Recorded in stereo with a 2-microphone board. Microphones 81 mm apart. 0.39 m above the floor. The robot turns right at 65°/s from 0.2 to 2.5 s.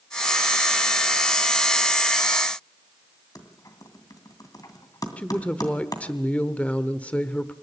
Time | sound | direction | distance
3.4 | typing on a keyboard | 50° left (ahead or behind) | 2.5 m
5.2 | a woman speaking | 15° left (ahead or behind) | 0.8 m